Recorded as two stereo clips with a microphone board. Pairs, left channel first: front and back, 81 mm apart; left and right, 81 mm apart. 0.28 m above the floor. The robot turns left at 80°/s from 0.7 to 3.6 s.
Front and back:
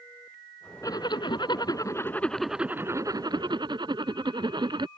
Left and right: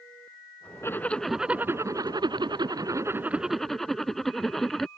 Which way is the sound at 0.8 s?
40° left.